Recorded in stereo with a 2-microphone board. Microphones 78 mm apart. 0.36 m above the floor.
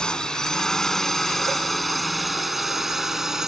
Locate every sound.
0.0 s a drone: 10° left (ahead or behind); by 3.5 s 5° right (ahead or behind)